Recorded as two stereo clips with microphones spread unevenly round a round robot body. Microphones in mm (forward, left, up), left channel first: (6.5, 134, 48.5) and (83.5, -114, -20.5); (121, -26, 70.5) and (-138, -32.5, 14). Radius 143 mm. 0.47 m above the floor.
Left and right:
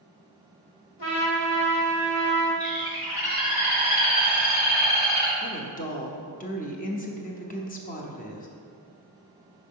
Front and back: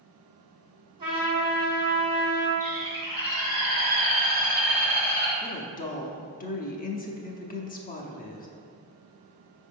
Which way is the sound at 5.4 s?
50° left.